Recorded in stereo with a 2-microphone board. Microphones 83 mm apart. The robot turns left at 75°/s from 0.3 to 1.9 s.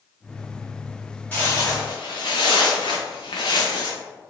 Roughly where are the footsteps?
Centre.